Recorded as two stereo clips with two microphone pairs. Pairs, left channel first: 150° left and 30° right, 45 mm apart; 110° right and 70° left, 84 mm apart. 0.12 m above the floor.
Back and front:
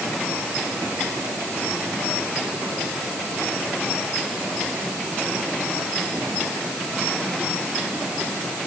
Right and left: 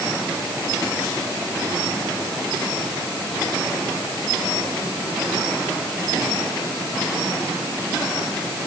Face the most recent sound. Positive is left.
No sound to turn to.